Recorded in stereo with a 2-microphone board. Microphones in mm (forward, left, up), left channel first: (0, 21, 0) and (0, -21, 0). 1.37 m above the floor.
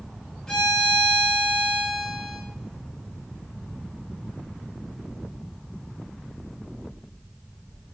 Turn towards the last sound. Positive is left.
turn(degrees=10)  # may be behind; listen again after turning